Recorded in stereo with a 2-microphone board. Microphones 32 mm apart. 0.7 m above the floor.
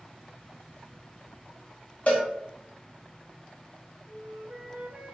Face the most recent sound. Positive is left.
turn(degrees=-65)  # may be behind; listen again after turning